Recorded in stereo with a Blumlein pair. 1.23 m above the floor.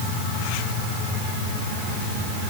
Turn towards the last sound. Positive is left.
No sound to turn to.